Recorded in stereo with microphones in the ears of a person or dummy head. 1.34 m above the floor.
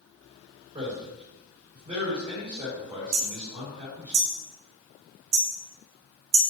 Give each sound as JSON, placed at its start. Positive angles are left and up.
{"t": 0.7, "sound": "a man speaking", "side_deg": -20, "distance_m": 4.0}
{"t": 3.1, "sound": "hammering", "side_deg": -30, "distance_m": 1.9}